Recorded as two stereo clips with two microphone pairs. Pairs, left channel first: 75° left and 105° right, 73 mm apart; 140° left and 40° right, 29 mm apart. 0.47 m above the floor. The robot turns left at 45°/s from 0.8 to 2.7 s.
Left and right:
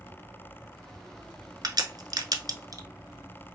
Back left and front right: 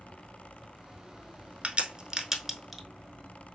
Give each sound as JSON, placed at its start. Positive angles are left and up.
{"t": 1.6, "sound": "a crack", "azimuth_deg": -90, "distance_m": 0.9}